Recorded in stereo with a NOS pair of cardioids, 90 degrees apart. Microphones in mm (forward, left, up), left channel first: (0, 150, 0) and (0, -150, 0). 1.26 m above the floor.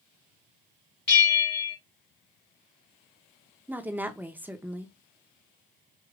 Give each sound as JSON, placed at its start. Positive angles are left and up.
{"t": 1.1, "sound": "a bell", "azimuth_deg": 40, "distance_m": 1.2}
{"t": 3.7, "sound": "a woman speaking", "azimuth_deg": -5, "distance_m": 0.7}